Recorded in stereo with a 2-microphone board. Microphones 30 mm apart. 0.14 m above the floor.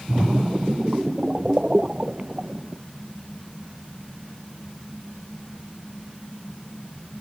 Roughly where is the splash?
Right.